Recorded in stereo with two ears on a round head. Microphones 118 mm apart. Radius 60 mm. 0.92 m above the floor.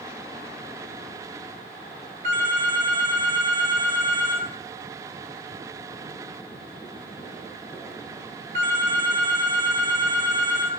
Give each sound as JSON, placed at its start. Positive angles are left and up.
{"t": 2.2, "sound": "a phone ringing", "side_deg": -50, "distance_m": 1.8}